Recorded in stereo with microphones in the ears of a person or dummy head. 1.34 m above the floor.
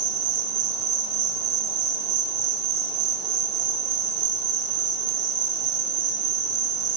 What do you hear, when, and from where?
0.0 s an insect: 70° right (ahead or behind), 5.5 m